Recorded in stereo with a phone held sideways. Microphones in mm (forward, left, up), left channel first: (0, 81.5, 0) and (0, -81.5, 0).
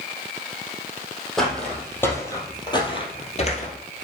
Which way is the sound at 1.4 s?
Centre (ahead or behind).